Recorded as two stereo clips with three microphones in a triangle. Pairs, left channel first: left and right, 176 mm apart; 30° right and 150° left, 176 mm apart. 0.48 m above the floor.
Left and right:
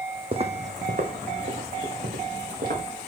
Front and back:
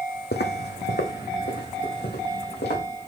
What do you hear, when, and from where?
0.3 s footsteps: 35° right, 1.2 m; by 2.8 s 55° right, 4 m